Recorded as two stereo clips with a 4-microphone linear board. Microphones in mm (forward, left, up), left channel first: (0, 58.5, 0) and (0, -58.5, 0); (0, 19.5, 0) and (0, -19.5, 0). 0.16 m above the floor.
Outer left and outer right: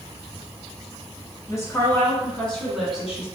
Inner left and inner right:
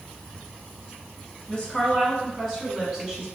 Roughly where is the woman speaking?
Left.